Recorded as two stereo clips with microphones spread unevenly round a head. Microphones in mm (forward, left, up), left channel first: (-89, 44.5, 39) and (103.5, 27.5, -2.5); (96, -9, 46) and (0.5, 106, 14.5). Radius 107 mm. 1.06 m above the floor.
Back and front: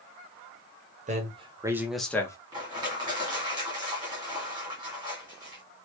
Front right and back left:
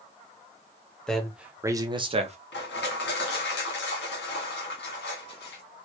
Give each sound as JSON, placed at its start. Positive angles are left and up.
{"t": 1.1, "sound": "a man speaking", "azimuth_deg": 40, "distance_m": 1.2}
{"t": 2.5, "sound": "crushing", "azimuth_deg": -70, "distance_m": 1.6}